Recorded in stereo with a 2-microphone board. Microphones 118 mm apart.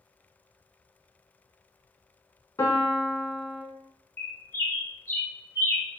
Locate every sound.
2.6 s a piano: 25° left (ahead or behind), 0.6 m
4.2 s a bird: 25° left (ahead or behind), 0.6 m